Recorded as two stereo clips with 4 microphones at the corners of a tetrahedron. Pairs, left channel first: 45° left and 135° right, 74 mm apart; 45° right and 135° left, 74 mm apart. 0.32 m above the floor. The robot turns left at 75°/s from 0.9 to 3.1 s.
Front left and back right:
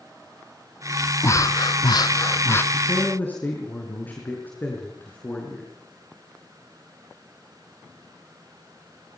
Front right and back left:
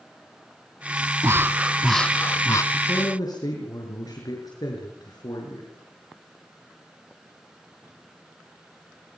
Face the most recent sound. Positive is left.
turn(degrees=-20)